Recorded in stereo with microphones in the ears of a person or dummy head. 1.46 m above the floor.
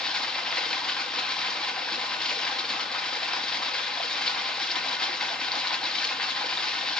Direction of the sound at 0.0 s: 5° left (ahead or behind).